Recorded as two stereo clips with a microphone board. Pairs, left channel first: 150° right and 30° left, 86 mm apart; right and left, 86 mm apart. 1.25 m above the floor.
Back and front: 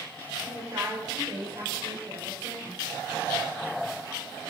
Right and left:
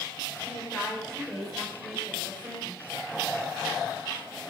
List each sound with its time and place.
0.4 s a woman speaking: 15° right, 6 m; by 2.8 s 20° left, 7 m